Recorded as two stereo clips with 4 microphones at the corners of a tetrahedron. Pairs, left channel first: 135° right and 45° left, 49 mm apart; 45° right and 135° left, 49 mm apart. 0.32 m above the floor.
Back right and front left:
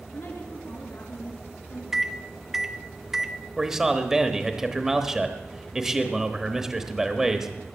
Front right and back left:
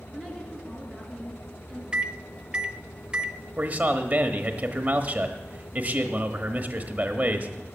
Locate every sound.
0.1 s a woman speaking: 125° right, 4.5 m
1.9 s a microwave: 110° left, 0.6 m
3.6 s a man speaking: 115° left, 1.1 m